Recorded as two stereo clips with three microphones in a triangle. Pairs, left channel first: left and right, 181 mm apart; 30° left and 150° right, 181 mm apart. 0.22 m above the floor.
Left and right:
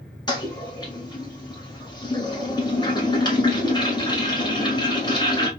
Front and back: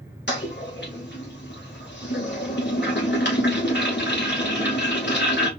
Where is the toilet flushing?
25° left, 1.4 m.